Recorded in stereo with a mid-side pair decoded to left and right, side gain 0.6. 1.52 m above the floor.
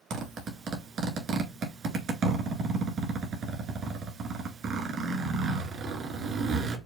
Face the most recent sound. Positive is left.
turn(degrees=-50)